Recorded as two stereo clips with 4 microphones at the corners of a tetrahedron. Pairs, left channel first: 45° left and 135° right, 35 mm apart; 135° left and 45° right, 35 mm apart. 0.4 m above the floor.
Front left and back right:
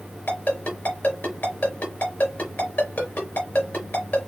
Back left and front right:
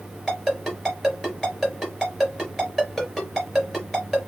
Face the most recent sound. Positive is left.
turn(degrees=45)